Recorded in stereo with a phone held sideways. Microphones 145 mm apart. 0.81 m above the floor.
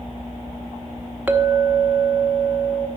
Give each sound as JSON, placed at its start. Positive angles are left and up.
{"t": 1.3, "sound": "a clink", "side_deg": -10, "distance_m": 0.8}